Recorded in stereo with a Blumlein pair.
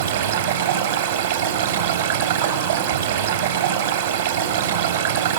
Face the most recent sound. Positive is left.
turn(degrees=-65)